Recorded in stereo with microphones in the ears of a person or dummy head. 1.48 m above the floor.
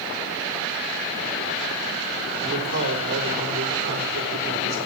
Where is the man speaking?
65° right (ahead or behind), 3.5 m.